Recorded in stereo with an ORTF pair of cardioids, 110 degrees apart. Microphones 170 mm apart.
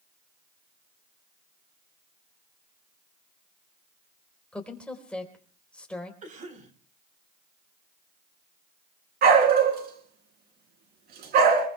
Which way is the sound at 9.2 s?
65° right.